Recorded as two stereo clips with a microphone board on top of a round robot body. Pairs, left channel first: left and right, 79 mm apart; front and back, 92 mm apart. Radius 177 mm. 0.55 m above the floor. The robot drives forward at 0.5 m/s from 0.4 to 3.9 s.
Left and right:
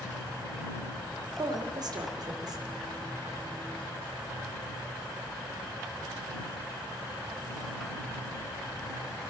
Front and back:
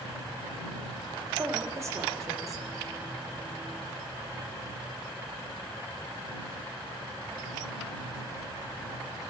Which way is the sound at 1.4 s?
120° right.